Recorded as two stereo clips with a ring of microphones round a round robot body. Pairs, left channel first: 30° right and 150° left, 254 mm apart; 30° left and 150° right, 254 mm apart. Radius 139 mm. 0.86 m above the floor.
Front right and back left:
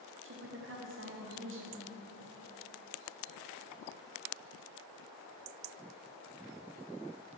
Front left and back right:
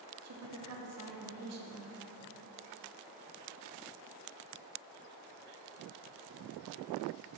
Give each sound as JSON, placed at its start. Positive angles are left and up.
{"t": 0.2, "sound": "a woman speaking", "azimuth_deg": -170, "distance_m": 1.2}